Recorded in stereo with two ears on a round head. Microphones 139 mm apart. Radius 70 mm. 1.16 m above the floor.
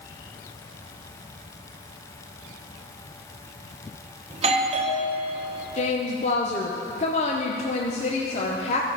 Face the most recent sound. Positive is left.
turn(degrees=40)  # may be behind; listen again after turning